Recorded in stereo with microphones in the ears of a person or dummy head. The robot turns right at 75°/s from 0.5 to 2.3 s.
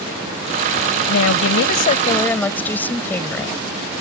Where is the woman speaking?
75° left; by 3.6 s 165° left.